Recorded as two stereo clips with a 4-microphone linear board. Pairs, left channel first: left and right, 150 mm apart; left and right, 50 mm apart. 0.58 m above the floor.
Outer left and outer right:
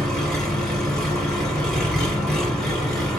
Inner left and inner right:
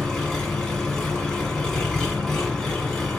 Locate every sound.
0.0 s an engine running: 5° left (ahead or behind), 1.4 m